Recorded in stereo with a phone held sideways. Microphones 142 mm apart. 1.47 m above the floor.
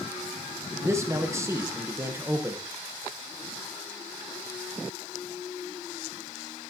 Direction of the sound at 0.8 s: 20° right (ahead or behind).